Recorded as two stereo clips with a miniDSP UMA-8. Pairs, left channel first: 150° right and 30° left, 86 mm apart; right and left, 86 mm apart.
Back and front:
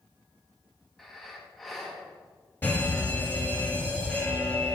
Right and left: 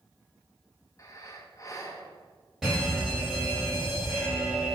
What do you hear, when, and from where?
1.0 s breathing: 65° right, 0.6 m
2.6 s a fire alarm: 170° left, 1.5 m